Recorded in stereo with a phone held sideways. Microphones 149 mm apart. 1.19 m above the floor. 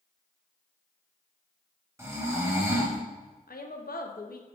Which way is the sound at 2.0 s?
20° right (ahead or behind).